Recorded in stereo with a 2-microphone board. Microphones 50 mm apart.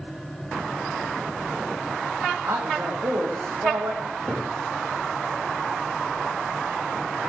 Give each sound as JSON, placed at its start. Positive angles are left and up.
{"t": 2.4, "sound": "a man speaking", "side_deg": -70, "distance_m": 8.0}
{"t": 4.0, "sound": "a cupboard door", "side_deg": -30, "distance_m": 9.5}